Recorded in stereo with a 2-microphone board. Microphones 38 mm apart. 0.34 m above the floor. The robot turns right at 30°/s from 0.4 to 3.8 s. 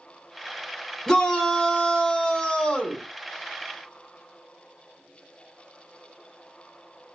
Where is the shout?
15° left (ahead or behind), 1.5 m; by 3.0 s 30° left (ahead or behind), 1.5 m.